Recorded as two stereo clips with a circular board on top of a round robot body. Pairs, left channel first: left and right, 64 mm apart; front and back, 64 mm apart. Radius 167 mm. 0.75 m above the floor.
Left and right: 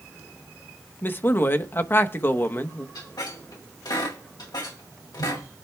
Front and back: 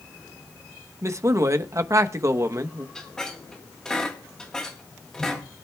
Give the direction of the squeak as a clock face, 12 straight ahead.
9 o'clock.